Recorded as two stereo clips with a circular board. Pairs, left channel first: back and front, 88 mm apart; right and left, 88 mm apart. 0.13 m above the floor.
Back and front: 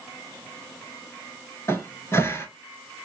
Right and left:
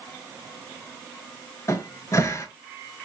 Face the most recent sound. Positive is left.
turn(degrees=-130)